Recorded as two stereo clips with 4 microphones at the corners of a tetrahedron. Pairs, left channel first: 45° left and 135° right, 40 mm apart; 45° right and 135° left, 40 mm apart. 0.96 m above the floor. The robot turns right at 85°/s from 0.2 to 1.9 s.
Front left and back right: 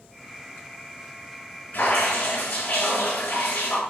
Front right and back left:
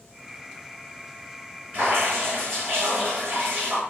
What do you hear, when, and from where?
1.7 s dripping: 90° left, 5 m; by 3.8 s 100° left, 5 m